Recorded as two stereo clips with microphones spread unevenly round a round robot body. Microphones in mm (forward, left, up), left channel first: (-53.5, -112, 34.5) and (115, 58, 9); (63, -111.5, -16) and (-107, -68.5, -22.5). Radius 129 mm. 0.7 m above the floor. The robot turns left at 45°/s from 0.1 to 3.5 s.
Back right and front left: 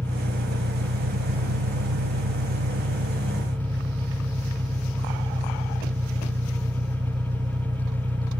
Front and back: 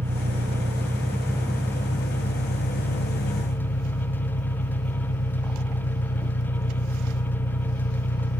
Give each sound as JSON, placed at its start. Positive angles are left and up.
{"t": 0.0, "sound": "an engine running", "azimuth_deg": 125}